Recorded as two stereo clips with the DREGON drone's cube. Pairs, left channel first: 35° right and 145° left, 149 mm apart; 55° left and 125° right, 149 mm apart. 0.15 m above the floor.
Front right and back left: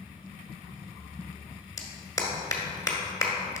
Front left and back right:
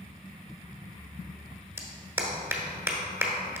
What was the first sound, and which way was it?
A clap, 70° right.